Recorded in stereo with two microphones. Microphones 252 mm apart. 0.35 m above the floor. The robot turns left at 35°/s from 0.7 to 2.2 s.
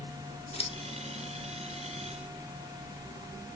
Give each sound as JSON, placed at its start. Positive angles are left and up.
{"t": 0.5, "sound": "scissors", "side_deg": 25, "distance_m": 0.6}